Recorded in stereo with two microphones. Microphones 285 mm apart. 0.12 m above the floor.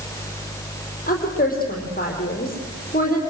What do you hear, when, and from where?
1.1 s a woman speaking: 30° left (ahead or behind), 5 m